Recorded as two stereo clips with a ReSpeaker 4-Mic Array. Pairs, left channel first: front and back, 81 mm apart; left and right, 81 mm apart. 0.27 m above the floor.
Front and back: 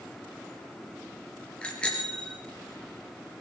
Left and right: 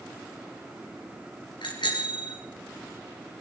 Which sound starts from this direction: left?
A bicycle bell, at 1.6 s.